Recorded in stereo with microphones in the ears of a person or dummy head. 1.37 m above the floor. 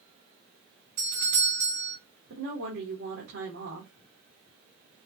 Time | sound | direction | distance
1.0 | a doorbell | 45° right (ahead or behind) | 3 m
2.3 | a woman speaking | 70° right (ahead or behind) | 2 m